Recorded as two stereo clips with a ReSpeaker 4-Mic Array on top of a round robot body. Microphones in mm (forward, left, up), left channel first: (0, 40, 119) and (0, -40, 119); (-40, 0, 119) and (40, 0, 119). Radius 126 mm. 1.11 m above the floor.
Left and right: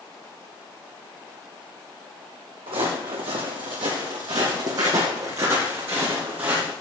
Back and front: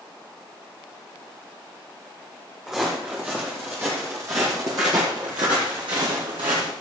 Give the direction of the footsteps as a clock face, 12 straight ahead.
3 o'clock.